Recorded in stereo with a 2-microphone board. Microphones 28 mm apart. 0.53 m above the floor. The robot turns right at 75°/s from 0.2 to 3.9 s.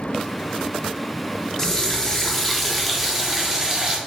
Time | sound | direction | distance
1.6 | a running tap | 20° left (ahead or behind) | 0.6 m